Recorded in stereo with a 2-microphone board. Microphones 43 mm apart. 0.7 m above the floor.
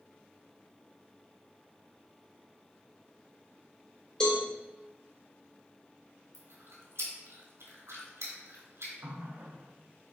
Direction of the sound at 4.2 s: 20° left (ahead or behind).